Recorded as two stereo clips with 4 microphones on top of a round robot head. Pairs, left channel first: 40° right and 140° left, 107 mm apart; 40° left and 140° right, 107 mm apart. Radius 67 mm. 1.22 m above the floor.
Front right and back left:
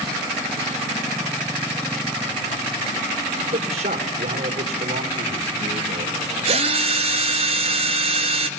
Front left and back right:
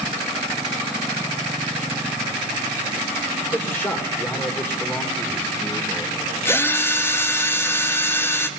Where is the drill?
105° left, 1.9 m.